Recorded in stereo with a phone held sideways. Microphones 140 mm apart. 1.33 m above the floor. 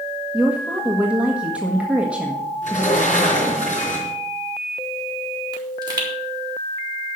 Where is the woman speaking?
10° right (ahead or behind), 1.6 m.